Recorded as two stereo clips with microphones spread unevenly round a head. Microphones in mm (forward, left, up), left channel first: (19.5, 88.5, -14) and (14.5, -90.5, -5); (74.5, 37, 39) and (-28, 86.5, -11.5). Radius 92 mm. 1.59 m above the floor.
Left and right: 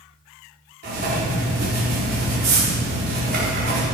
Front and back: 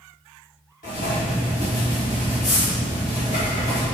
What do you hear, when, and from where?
0.8 s writing: 60° right, 4.5 m